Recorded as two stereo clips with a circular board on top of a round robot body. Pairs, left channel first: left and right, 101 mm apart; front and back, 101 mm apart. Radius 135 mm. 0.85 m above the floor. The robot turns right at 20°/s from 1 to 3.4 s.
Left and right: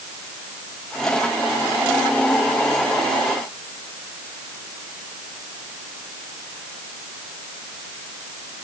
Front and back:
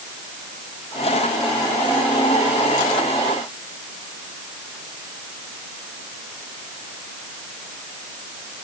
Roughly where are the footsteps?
I don't hear footsteps.